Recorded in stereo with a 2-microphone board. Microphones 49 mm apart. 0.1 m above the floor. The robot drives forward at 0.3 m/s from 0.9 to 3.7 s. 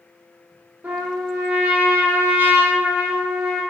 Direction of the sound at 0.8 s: 30° right (ahead or behind).